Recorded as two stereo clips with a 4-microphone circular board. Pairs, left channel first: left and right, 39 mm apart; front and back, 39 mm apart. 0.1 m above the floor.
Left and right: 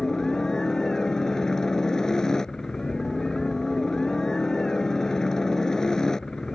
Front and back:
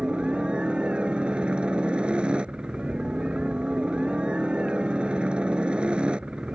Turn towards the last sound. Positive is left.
turn(degrees=150)